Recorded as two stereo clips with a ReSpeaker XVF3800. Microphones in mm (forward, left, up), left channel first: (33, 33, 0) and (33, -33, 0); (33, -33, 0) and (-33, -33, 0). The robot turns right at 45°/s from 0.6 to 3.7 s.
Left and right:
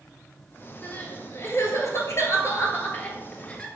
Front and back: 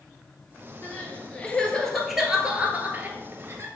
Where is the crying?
35° left, 1.5 m; by 3.7 s 160° left, 1.5 m.